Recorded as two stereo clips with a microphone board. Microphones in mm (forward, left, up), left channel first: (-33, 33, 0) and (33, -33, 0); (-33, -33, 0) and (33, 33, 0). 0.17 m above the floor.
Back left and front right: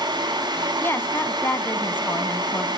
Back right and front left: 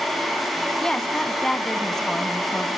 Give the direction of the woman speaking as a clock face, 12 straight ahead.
7 o'clock.